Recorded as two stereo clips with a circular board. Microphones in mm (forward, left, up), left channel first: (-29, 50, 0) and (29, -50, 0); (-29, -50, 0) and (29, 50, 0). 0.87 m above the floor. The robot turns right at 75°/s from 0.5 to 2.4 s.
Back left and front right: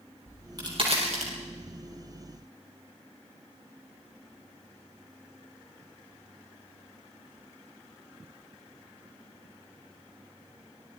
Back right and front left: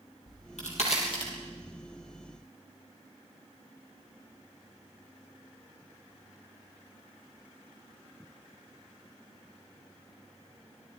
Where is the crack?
125° right, 7 m; by 1.3 s 60° right, 7 m.